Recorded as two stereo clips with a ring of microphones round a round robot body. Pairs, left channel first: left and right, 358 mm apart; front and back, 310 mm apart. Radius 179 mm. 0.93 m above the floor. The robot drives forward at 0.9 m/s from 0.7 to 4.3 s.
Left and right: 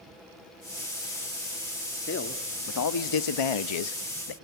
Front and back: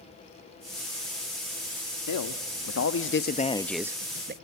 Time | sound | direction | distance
2.1 | a man speaking | 30° left | 1.7 m